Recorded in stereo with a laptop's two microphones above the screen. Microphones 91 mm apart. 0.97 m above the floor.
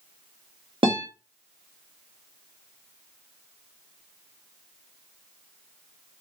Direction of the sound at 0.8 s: 75° right (ahead or behind).